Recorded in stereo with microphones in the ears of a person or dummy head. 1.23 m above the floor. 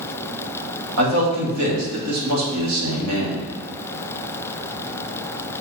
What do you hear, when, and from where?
1.0 s a man speaking: 75° right (ahead or behind), 2.5 m